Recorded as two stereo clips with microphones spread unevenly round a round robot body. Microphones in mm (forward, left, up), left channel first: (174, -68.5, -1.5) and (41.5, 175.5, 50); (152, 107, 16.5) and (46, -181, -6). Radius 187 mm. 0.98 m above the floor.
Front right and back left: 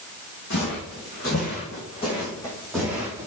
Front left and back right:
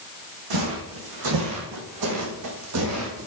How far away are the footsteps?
About 3 m.